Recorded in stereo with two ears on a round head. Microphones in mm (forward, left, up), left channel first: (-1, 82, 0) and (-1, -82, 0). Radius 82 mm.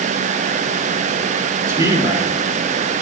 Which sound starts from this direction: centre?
A man speaking, at 1.7 s.